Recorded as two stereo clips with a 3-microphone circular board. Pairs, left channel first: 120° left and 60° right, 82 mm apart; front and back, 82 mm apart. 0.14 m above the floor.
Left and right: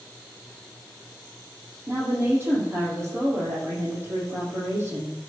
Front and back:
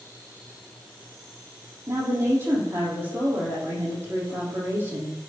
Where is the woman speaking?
120° right, 6 m.